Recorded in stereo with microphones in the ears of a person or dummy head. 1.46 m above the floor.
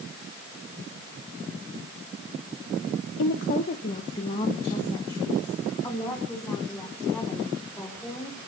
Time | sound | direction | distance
3.2 | a woman speaking | 55° left (ahead or behind) | 0.7 m